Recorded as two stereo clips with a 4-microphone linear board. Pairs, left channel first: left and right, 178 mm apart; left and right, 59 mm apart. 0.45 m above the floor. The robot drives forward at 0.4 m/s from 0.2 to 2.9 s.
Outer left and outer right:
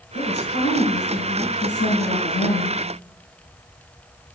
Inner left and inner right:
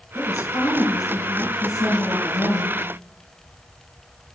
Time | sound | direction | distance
0.1 | a woman speaking | 75° left (ahead or behind) | 6.5 m